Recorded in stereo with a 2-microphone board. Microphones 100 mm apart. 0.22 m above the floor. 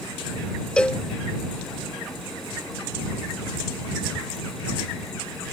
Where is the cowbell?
10° left (ahead or behind).